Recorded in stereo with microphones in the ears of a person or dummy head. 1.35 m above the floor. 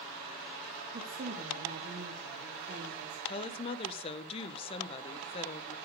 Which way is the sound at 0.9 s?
35° right (ahead or behind).